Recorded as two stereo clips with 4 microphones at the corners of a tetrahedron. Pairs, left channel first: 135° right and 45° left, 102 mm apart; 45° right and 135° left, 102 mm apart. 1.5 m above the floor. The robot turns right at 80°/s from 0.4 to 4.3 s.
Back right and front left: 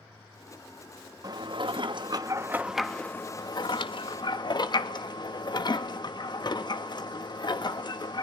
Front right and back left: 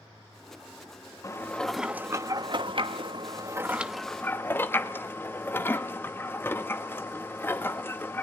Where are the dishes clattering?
5° left, 1.2 m; by 8.2 s 110° right, 1.2 m.